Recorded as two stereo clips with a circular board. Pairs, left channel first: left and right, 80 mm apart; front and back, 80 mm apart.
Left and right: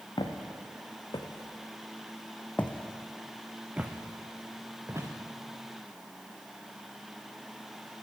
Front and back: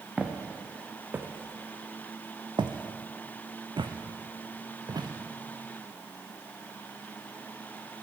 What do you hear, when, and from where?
0.2 s footsteps: 100° left, 1.5 m; by 5.1 s 145° right, 1.6 m